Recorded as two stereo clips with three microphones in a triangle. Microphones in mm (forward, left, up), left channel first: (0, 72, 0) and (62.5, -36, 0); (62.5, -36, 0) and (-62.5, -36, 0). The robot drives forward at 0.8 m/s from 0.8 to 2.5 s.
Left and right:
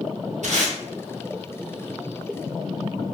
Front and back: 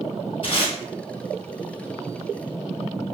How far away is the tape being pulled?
About 1.6 m.